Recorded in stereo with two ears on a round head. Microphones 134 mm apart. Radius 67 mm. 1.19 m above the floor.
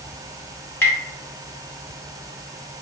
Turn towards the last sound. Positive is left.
turn(degrees=15)  # may be behind; listen again after turning